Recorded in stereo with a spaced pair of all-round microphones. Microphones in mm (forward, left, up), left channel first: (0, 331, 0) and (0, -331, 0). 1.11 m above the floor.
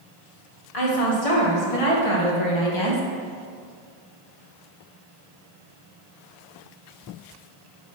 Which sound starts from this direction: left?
A woman speaking, at 0.7 s.